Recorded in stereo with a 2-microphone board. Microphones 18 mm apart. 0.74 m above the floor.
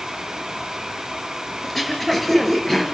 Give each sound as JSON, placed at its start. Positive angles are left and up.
{"t": 1.6, "sound": "throat clearing", "side_deg": 10, "distance_m": 3.0}